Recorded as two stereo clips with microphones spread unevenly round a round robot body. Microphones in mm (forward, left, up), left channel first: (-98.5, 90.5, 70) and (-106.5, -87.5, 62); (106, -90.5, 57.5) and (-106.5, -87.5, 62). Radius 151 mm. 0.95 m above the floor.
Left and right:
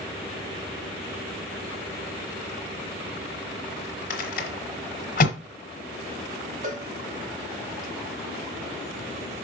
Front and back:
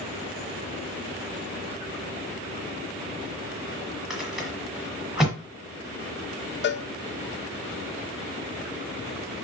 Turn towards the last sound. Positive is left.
turn(degrees=-40)